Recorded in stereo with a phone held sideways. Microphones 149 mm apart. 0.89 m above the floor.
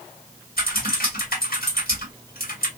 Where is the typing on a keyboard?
85° left, 1.6 m.